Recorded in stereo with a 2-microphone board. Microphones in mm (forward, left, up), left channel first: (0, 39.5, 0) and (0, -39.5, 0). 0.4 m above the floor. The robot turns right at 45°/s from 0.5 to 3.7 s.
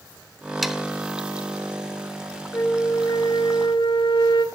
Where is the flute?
35° left, 1.3 m; by 4.5 s 90° left, 1.3 m.